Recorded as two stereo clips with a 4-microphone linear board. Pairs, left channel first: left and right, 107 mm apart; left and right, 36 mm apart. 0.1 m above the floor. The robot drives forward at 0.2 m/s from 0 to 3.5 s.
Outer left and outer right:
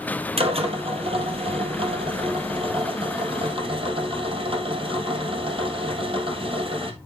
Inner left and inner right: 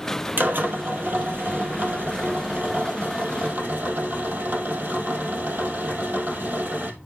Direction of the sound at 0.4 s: 65° right (ahead or behind).